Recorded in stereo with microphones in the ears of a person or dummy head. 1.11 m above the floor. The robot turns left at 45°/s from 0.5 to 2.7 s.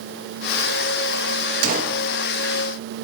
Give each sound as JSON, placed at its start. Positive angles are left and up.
{"t": 1.6, "sound": "a gunshot", "side_deg": -50, "distance_m": 1.3}